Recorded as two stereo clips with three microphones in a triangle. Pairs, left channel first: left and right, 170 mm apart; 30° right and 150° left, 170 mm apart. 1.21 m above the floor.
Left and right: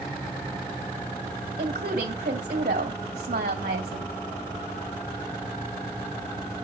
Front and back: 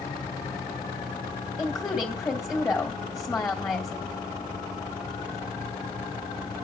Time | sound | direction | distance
1.6 | a woman speaking | 105° right | 2.5 m